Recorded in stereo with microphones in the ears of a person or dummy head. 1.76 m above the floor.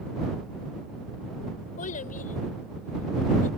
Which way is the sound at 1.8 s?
50° left (ahead or behind).